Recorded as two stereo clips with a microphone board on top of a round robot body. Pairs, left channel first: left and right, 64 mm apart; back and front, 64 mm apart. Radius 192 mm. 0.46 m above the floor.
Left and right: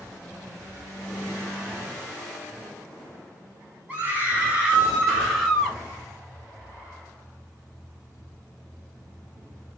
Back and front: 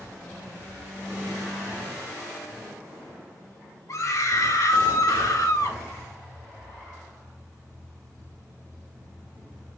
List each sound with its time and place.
3.9 s a scream: 155° right, 3.5 m; by 5.8 s straight behind, 3 m